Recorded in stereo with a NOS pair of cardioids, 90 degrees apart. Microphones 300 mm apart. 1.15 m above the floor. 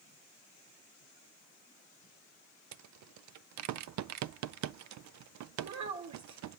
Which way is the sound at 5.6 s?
70° right.